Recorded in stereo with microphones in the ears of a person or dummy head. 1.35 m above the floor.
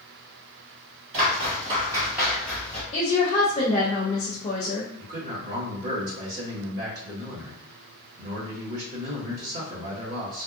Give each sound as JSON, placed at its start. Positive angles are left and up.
{"t": 1.1, "sound": "footsteps", "side_deg": -45, "distance_m": 1.8}
{"t": 2.9, "sound": "a woman speaking", "side_deg": 35, "distance_m": 0.5}
{"t": 5.0, "sound": "a man speaking", "side_deg": -50, "distance_m": 1.3}